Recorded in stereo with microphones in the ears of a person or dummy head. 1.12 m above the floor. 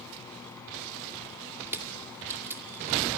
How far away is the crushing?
About 2.5 m.